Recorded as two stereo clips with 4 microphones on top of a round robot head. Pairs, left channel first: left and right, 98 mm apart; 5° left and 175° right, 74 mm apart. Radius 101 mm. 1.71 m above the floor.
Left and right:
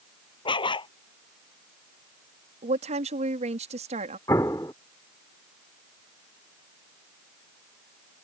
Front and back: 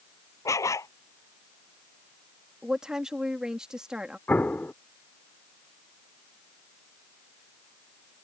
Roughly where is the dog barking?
Ahead left.